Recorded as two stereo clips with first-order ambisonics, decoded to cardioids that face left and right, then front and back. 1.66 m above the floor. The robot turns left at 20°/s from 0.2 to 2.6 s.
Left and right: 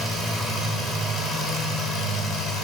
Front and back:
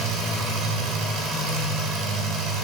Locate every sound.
0.0 s an engine running: 165° right, 3.5 m; by 2.6 s 150° left, 3.5 m